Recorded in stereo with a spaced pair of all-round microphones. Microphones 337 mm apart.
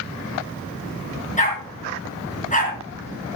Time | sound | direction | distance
1.4 | a dog barking | 20° left (ahead or behind) | 6 m